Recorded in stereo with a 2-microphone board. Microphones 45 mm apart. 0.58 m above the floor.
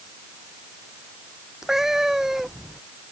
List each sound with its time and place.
1.6 s a cat meowing: 10° right (ahead or behind)